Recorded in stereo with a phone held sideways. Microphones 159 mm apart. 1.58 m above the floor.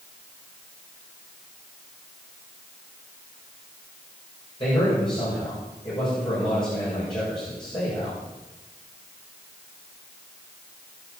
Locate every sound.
4.6 s a man speaking: 30° left (ahead or behind), 7 m